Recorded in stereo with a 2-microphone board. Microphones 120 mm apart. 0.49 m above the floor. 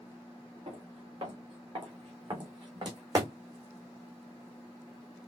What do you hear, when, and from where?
0.7 s footsteps: 50° right (ahead or behind), 3 m; by 3.3 s 30° right (ahead or behind), 1.8 m